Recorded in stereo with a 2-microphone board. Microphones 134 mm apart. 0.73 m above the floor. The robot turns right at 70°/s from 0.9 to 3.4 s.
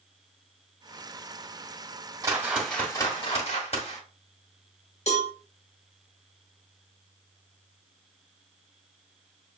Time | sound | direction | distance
2.2 | a whoosh | 25° right | 1.5 m
5.1 | a cowbell | 55° left (ahead or behind) | 1.4 m